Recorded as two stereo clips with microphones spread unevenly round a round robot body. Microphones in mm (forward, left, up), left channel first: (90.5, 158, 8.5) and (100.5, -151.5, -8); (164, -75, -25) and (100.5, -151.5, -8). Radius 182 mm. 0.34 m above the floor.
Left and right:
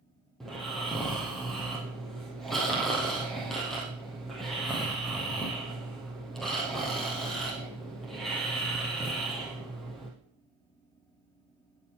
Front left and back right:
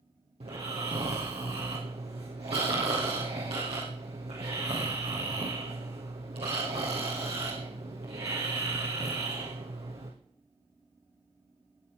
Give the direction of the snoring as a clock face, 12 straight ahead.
6 o'clock.